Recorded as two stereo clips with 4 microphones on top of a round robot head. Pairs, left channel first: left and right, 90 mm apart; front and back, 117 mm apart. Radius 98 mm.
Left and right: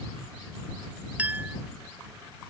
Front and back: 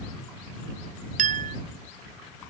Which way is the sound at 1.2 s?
165° right.